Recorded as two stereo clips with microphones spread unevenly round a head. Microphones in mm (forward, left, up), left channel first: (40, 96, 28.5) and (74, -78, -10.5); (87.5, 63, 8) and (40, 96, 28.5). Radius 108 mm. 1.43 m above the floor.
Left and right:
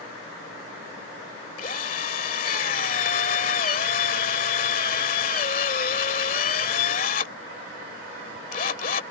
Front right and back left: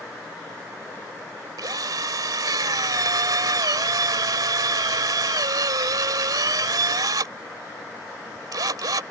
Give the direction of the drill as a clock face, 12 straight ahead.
7 o'clock.